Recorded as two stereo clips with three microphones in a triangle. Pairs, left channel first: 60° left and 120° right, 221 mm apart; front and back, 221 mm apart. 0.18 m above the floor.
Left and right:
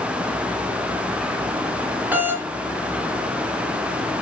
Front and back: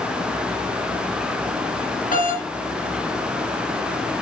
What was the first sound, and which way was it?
A doorbell, 40° right.